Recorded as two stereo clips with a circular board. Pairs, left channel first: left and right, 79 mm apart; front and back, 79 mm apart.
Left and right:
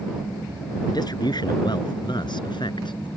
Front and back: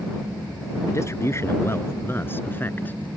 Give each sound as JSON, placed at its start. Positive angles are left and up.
{"t": 0.9, "sound": "a man speaking", "azimuth_deg": 55}